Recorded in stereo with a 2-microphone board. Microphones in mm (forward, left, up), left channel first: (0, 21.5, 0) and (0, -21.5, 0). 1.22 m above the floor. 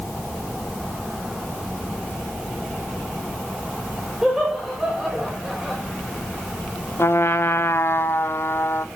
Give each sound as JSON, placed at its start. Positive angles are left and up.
{"t": 4.2, "sound": "laughter", "side_deg": -10, "distance_m": 5.0}
{"t": 7.0, "sound": "a trumpet", "side_deg": 60, "distance_m": 1.2}